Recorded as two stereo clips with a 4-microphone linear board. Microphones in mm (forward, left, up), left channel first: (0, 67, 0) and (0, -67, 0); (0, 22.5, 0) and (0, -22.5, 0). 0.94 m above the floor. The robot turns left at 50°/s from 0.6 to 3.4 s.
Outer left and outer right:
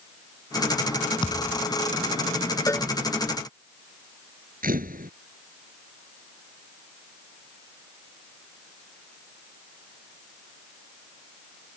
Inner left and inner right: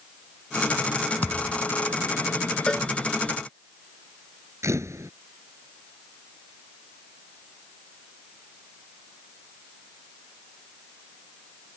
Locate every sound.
1.2 s a thud: 30° left (ahead or behind); by 1.7 s 55° left (ahead or behind)
2.7 s a cowbell: 20° left (ahead or behind); by 2.9 s 10° left (ahead or behind)
4.6 s a camera shutter: 90° right